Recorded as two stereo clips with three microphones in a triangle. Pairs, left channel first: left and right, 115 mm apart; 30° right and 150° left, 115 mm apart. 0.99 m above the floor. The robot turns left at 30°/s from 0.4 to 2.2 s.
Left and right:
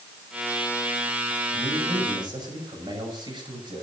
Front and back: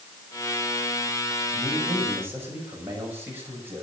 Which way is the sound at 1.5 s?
120° right.